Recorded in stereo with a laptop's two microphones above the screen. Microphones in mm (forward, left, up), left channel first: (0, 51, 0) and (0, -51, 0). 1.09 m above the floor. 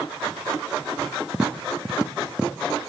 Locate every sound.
1.3 s tapping: 10° right (ahead or behind), 1.1 m